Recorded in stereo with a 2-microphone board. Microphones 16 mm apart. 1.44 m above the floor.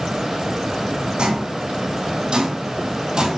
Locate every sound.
1.2 s footsteps: 60° right (ahead or behind), 3 m; by 3.4 s 45° right (ahead or behind), 2 m